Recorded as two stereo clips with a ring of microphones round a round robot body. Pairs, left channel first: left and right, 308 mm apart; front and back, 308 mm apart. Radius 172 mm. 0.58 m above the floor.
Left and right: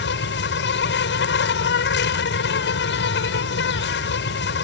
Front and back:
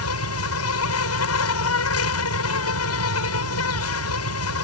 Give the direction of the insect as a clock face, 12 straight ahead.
11 o'clock.